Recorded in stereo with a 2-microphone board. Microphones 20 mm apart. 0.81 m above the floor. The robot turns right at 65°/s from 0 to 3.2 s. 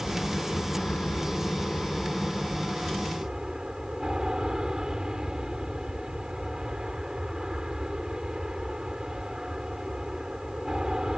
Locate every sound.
0.0 s an aircraft: 10° left; by 11.2 s 140° right